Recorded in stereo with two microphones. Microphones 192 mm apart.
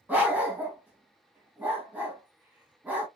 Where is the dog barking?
10° right (ahead or behind), 1.6 m.